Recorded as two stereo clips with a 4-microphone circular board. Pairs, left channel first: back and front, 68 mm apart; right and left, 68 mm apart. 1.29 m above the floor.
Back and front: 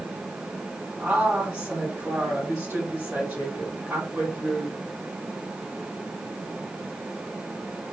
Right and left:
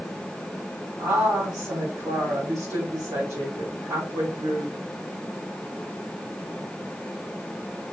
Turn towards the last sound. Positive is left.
turn(degrees=75)